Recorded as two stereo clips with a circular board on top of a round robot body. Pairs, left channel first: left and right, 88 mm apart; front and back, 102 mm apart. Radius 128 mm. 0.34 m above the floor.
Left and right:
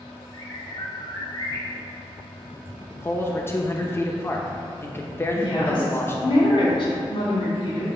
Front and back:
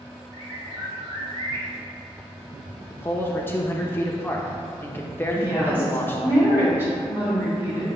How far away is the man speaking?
About 0.9 m.